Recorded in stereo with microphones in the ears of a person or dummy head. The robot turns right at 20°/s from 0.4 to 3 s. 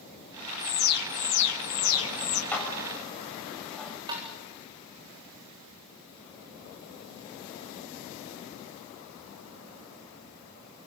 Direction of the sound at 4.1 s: 20° right (ahead or behind).